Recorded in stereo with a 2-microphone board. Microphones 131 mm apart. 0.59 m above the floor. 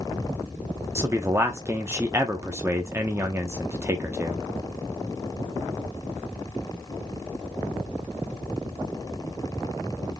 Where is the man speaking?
20° right (ahead or behind), 0.8 m.